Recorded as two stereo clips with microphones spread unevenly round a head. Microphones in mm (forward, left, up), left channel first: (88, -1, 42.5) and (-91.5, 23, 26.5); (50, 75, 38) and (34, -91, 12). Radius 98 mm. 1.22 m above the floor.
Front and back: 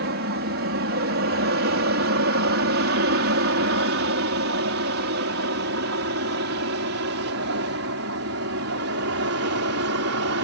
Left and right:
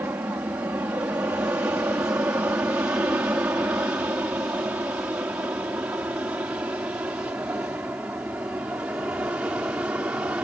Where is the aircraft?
175° right; by 10.5 s straight behind.